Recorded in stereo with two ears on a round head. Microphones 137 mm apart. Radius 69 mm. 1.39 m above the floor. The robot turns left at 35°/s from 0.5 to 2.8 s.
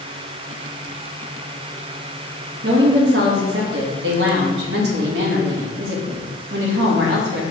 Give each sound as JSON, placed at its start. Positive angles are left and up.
{"t": 2.6, "sound": "a woman speaking", "side_deg": -70, "distance_m": 1.8}